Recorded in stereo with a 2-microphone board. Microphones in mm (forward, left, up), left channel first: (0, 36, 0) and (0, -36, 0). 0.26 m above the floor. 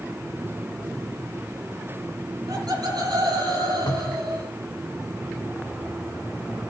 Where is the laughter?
65° right (ahead or behind), 8 m; by 4.5 s 75° right (ahead or behind), 7 m.